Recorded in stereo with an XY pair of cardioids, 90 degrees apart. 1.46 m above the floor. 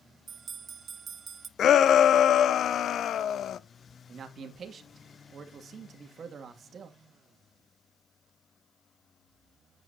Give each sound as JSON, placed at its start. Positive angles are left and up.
{"t": 0.3, "sound": "a bell", "azimuth_deg": -55, "distance_m": 0.6}
{"t": 1.6, "sound": "a shout", "azimuth_deg": 70, "distance_m": 0.6}
{"t": 4.1, "sound": "a man speaking", "azimuth_deg": -55, "distance_m": 2.0}